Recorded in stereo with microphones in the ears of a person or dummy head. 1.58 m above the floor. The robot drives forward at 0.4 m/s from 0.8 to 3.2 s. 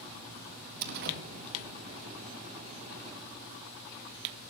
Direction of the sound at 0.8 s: 50° right (ahead or behind).